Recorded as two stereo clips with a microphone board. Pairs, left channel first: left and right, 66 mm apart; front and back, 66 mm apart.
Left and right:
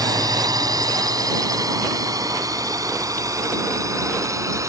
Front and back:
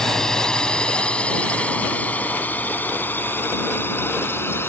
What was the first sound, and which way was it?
A drone, 80° right.